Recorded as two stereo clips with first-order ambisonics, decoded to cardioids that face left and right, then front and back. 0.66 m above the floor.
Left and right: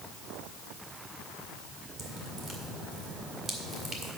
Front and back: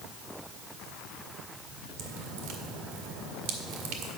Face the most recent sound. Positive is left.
turn(degrees=-155)